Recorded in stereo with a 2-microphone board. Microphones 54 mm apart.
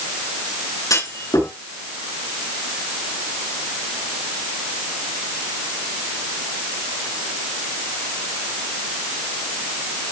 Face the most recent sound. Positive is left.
turn(degrees=80)